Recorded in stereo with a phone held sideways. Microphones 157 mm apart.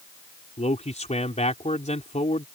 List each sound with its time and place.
0.6 s a man speaking: 45° left (ahead or behind)